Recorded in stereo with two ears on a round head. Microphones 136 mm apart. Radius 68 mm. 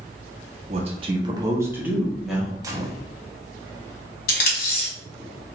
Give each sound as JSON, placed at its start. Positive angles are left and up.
{"t": 0.7, "sound": "a man speaking", "side_deg": -45, "distance_m": 0.8}
{"t": 2.6, "sound": "a gunshot", "side_deg": -25, "distance_m": 0.5}
{"t": 4.3, "sound": "tape being pulled", "side_deg": 65, "distance_m": 1.6}